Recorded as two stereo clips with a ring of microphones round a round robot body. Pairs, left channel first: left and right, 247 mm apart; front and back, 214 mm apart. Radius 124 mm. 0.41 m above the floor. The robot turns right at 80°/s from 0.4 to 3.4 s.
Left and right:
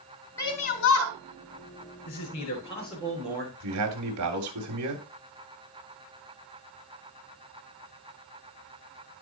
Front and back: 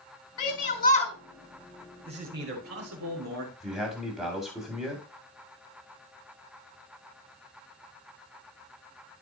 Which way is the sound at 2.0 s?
115° left.